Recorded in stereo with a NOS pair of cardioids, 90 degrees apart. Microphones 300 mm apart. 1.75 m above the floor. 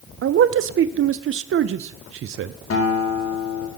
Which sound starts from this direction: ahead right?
A man speaking, at 0.2 s.